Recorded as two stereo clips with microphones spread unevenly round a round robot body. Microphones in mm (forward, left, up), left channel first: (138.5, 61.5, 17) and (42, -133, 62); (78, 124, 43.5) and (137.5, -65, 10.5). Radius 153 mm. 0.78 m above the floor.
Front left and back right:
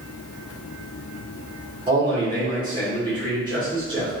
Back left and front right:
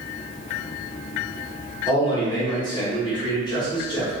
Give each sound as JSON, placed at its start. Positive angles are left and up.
{"t": 1.9, "sound": "a man speaking", "azimuth_deg": 175, "distance_m": 1.1}